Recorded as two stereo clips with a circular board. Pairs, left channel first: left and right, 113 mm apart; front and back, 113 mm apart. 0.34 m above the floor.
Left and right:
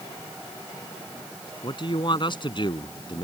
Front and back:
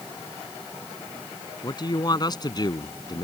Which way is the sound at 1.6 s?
50° left.